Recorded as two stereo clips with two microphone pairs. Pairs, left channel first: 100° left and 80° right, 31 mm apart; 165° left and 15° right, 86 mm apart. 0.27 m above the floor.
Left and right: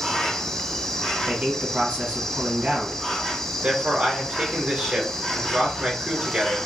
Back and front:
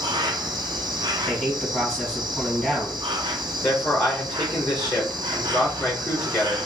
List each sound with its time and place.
0.0 s an insect: 20° left, 0.8 m
1.3 s a man speaking: 115° right, 2.5 m
3.6 s a man speaking: 135° right, 3.5 m